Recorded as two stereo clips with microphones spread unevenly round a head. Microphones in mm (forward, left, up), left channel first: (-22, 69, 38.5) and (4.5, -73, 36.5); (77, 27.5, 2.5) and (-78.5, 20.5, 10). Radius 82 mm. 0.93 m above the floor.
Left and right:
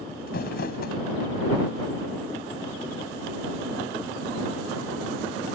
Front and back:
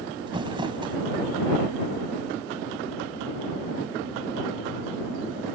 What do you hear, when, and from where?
0.3 s crumpling: 125° left